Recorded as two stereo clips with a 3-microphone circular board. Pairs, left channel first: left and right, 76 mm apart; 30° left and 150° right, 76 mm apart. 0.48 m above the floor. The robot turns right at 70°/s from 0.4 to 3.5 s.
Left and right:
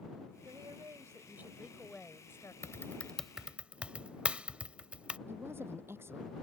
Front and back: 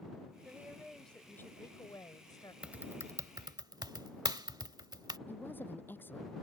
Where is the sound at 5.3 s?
35° right.